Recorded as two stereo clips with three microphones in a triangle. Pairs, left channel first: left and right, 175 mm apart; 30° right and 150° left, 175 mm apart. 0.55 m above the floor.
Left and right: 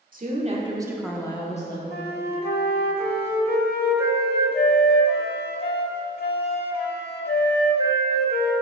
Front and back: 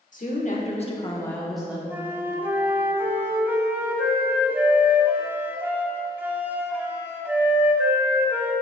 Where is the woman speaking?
65° right, 1.4 m; by 1.8 s 70° left, 1.1 m.